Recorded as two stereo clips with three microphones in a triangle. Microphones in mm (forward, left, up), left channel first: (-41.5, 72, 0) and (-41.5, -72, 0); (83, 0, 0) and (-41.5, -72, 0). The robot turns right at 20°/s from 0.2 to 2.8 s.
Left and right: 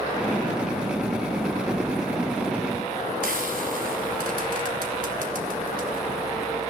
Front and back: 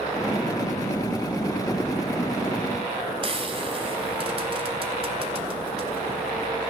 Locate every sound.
3.2 s frying: 100° right, 3.5 m